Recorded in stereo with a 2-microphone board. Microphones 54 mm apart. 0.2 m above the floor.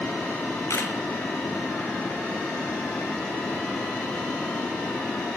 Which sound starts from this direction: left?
A camera shutter, at 0.7 s.